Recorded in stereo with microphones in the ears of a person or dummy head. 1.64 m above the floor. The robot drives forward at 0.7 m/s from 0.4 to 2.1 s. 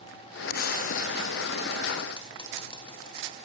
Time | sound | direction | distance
0.5 | frying | 50° left (ahead or behind) | 1.2 m